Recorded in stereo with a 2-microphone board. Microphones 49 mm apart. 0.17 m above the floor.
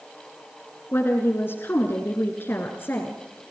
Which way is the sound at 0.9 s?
50° left (ahead or behind).